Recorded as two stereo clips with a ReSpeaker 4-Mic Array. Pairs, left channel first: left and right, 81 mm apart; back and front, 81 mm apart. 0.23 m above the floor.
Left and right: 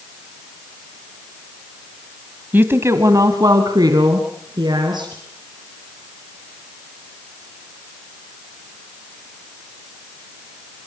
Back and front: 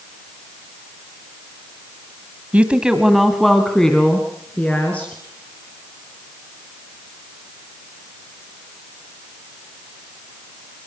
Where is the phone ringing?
No phone ringing in this recording.